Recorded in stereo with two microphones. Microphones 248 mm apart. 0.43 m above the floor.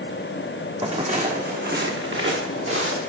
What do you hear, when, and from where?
0.8 s footsteps: 20° right (ahead or behind), 1.0 m; by 3.1 s 60° right (ahead or behind), 2 m